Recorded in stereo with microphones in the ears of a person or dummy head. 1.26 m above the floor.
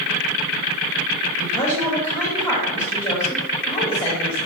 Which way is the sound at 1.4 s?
20° left (ahead or behind).